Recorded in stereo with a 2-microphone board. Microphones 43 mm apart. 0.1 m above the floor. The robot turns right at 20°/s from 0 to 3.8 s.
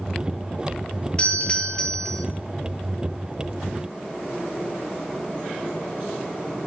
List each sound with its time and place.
1.2 s a doorbell: 30° left (ahead or behind), 2.5 m; by 2.2 s 15° left (ahead or behind), 2.5 m